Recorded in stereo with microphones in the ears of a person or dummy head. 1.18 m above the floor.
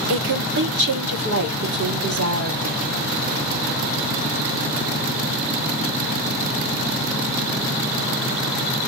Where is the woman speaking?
65° right (ahead or behind), 3 m.